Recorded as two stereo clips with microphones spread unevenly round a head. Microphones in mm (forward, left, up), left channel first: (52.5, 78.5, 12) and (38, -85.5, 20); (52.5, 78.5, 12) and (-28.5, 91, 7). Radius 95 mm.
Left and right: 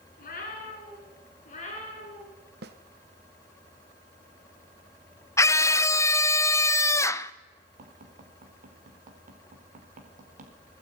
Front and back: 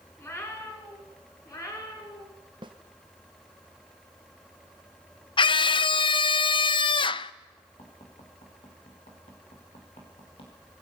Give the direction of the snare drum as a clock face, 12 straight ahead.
4 o'clock.